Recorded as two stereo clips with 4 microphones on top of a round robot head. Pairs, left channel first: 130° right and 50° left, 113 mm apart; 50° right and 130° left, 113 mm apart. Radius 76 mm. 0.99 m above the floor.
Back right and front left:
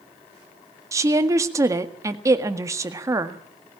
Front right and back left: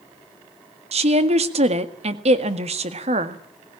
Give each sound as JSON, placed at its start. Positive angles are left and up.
{"t": 0.9, "sound": "a woman speaking", "azimuth_deg": 110, "distance_m": 1.8}